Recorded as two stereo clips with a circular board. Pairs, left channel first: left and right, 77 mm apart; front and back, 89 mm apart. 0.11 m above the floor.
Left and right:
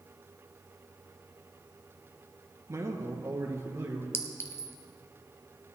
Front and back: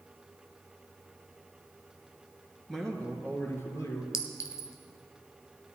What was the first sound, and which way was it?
A man speaking, 85° right.